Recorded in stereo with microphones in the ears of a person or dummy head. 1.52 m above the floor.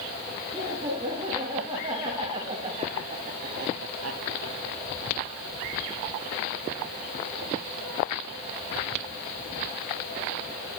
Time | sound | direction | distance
0.5 | laughter | 25° right (ahead or behind) | 4 m